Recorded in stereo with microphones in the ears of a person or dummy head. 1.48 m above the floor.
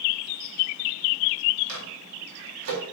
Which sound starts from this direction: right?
A microwave, at 1.7 s.